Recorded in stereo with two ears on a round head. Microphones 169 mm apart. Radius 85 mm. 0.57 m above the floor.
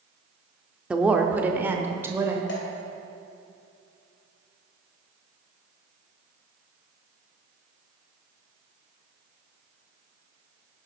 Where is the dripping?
60° left (ahead or behind), 2.5 m.